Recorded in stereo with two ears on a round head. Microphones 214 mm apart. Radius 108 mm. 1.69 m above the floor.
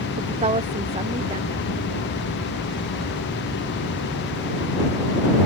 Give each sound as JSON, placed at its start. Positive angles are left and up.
{"t": 0.2, "sound": "a woman speaking", "side_deg": -30}